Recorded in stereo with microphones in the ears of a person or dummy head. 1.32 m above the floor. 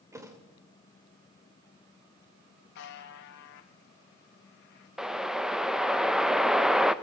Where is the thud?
15° right (ahead or behind), 2 m.